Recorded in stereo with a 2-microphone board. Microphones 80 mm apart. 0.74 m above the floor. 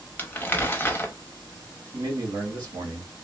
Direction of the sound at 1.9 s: 55° right (ahead or behind).